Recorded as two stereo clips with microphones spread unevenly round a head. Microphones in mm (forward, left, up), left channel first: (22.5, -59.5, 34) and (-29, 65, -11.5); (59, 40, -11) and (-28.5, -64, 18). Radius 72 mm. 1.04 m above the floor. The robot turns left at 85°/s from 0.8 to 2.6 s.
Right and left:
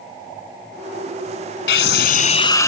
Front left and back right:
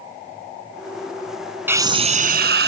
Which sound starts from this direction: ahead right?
A scream, at 1.7 s.